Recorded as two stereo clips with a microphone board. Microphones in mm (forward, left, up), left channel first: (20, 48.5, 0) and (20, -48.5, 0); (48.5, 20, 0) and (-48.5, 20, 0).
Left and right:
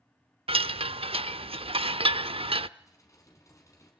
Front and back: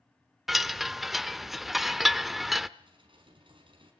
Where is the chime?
95° right, 0.5 m.